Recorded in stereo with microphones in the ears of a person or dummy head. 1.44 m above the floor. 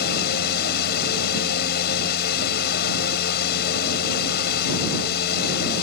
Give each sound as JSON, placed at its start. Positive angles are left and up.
{"t": 0.0, "sound": "a fan", "side_deg": 65}